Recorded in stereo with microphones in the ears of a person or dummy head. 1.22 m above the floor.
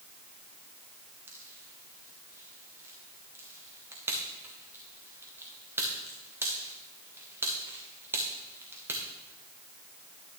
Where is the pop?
15° right (ahead or behind), 1.4 m.